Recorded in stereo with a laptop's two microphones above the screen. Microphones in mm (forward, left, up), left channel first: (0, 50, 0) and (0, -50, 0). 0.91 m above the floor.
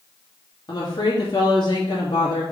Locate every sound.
0.7 s a woman speaking: 45° left (ahead or behind), 2 m